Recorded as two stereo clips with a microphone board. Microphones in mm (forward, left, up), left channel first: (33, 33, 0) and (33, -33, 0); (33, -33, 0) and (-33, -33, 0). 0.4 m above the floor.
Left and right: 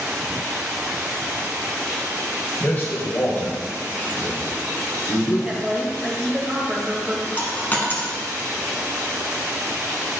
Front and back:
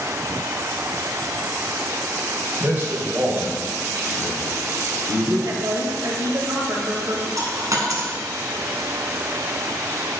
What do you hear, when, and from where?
2.6 s a man speaking: 140° left, 1.5 m; by 5.3 s 110° left, 2.5 m
5.5 s a woman speaking: 170° right, 1.8 m
7.4 s a dropped coin: 155° left, 1.9 m